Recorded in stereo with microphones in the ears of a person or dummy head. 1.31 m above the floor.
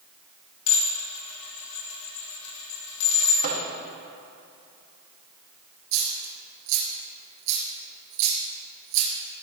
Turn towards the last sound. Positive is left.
turn(degrees=-65)  # may be behind; listen again after turning